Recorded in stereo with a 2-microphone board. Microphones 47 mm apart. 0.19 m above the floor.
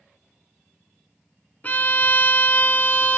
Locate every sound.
1.6 s a violin: 35° left (ahead or behind), 0.6 m